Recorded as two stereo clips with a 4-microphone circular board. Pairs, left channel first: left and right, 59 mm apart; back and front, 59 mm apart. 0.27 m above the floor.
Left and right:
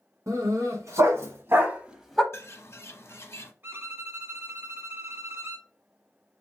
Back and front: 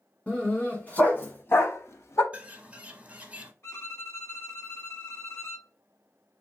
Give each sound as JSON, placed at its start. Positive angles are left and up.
{"t": 0.3, "sound": "a dog barking", "azimuth_deg": -110, "distance_m": 1.5}
{"t": 2.3, "sound": "a bird", "azimuth_deg": 60, "distance_m": 0.7}
{"t": 3.6, "sound": "a violin", "azimuth_deg": -140, "distance_m": 1.0}